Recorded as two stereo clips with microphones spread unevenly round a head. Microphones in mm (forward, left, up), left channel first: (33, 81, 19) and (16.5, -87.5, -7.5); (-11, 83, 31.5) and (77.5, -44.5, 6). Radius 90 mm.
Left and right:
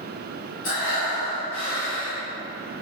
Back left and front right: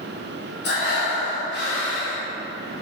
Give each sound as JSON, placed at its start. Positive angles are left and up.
{"t": 0.6, "sound": "breathing", "azimuth_deg": 110, "distance_m": 2.5}